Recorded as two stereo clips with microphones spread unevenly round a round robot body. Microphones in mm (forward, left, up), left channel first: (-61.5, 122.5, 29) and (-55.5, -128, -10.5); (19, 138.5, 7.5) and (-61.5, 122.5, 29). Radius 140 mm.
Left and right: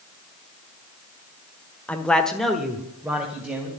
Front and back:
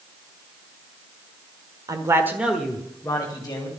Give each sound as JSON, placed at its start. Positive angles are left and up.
{"t": 1.9, "sound": "a man speaking", "azimuth_deg": -170, "distance_m": 1.4}